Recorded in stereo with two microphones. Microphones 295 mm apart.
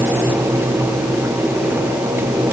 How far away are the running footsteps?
No running footsteps in this recording.